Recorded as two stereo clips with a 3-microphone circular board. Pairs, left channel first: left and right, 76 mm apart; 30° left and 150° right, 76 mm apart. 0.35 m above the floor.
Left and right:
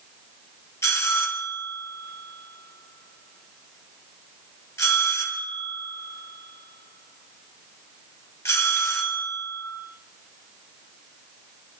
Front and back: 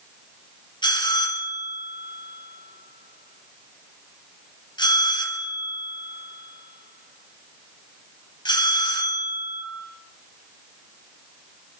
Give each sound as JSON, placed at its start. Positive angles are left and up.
{"t": 0.8, "sound": "a bell", "azimuth_deg": 35, "distance_m": 3.0}